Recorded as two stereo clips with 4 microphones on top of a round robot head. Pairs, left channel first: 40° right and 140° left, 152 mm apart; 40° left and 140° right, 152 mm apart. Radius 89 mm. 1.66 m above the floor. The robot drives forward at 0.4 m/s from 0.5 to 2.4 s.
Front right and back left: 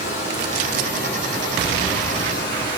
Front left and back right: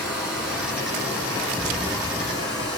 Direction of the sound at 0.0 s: 55° right.